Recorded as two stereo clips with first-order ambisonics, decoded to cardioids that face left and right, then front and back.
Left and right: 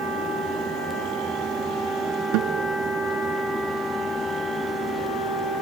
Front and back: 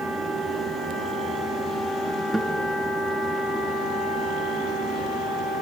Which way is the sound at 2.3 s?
95° right.